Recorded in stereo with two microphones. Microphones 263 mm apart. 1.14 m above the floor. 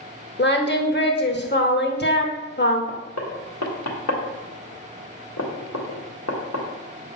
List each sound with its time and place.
0.4 s singing: 40° left (ahead or behind), 0.9 m
2.9 s knocking: 75° left (ahead or behind), 1.5 m